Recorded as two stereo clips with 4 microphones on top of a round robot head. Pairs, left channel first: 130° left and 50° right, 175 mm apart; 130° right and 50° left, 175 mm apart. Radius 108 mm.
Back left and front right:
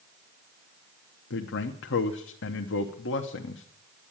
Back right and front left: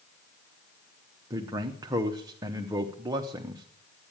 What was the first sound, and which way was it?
A man speaking, 120° left.